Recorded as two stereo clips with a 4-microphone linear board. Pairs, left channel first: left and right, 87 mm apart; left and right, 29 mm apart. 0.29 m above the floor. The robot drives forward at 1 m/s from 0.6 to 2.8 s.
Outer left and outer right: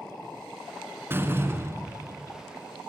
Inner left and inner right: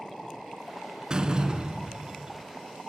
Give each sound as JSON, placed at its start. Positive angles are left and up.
{"t": 1.1, "sound": "a door slam", "side_deg": -25, "distance_m": 3.0}